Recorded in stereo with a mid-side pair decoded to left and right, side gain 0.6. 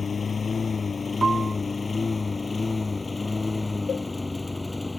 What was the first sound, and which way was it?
A lawn mower, 30° left.